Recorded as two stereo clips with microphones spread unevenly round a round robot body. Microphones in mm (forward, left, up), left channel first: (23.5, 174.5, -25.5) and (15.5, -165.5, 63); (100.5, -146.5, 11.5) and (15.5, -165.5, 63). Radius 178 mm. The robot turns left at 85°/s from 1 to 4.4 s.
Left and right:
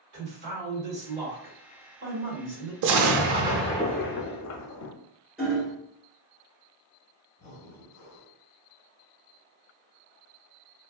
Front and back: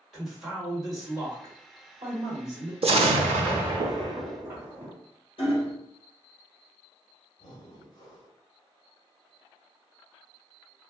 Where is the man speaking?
60° right, 1.9 m; by 2.7 s 155° left, 1.9 m.